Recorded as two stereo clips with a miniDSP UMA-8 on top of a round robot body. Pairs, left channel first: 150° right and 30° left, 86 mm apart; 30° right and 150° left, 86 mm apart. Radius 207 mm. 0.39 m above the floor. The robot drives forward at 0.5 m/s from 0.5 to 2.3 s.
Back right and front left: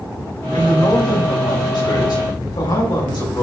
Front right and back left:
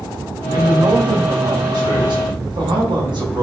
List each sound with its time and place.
0.5 s a man speaking: straight behind, 3.5 m